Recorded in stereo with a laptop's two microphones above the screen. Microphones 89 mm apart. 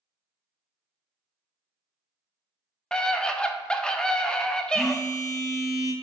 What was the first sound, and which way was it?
A scream, 10° left (ahead or behind).